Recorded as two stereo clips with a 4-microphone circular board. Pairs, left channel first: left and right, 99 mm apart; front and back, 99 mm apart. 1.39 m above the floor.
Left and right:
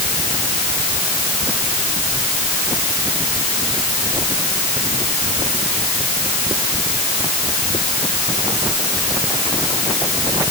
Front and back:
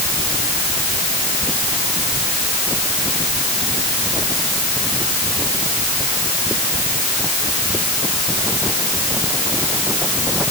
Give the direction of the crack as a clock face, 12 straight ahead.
I don't hear a crack.